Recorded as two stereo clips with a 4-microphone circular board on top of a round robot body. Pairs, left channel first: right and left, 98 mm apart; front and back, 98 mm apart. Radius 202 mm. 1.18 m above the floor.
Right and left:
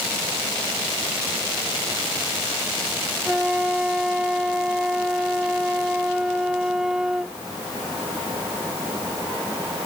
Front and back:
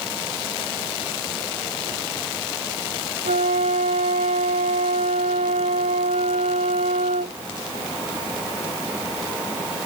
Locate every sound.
3.2 s a flute: 175° left